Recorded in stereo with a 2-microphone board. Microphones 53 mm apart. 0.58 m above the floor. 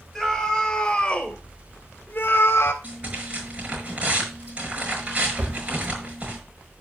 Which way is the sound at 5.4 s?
40° right (ahead or behind).